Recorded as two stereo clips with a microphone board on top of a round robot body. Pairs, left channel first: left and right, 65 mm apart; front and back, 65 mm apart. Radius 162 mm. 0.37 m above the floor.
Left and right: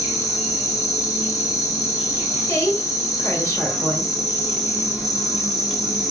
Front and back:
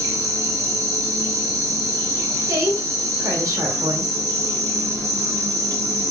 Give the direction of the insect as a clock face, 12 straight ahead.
6 o'clock.